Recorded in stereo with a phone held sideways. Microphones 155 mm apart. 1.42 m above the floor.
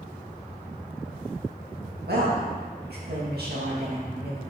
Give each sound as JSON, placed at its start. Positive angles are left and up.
{"t": 2.1, "sound": "a woman speaking", "side_deg": -85, "distance_m": 1.8}